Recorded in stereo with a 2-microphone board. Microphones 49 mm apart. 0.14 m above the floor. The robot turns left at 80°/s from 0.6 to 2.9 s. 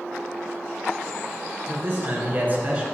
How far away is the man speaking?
About 2 m.